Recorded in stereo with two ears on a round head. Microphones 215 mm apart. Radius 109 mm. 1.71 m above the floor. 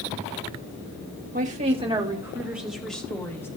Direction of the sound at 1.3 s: 35° right (ahead or behind).